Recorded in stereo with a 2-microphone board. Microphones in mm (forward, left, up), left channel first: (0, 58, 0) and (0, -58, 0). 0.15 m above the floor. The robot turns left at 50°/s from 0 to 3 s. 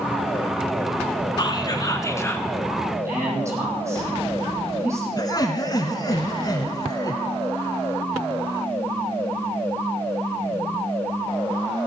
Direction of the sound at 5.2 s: 35° left (ahead or behind).